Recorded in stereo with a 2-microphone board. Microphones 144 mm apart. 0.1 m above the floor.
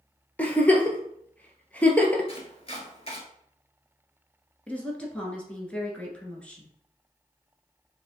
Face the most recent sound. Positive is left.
turn(degrees=10)  # may be behind; listen again after turning